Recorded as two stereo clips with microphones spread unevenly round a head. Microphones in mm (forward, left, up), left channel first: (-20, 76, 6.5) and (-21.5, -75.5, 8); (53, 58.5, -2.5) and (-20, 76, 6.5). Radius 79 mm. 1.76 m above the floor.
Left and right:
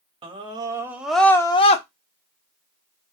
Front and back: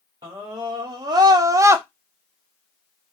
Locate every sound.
0.2 s a scream: 145° right, 0.8 m; by 1.9 s 120° left, 0.5 m